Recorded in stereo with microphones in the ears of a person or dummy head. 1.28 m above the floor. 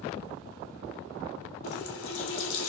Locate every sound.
1.6 s a running tap: 80° left, 1.8 m